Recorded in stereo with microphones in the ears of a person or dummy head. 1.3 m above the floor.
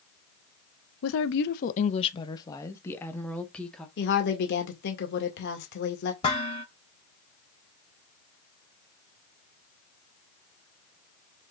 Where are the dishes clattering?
35° left (ahead or behind), 4.5 m.